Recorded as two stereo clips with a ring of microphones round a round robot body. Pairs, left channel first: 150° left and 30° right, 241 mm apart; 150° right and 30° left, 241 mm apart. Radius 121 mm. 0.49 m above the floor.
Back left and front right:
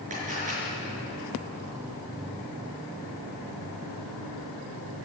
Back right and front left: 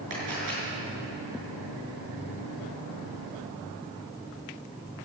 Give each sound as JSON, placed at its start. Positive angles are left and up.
{"t": 0.1, "sound": "a camera shutter", "azimuth_deg": 30, "distance_m": 6.5}